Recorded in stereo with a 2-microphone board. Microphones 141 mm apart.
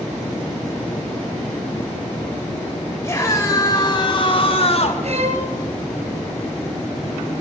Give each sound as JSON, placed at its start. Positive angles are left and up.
{"t": 3.0, "sound": "a scream", "side_deg": 20, "distance_m": 3.5}
{"t": 5.0, "sound": "a violin", "side_deg": -60, "distance_m": 3.5}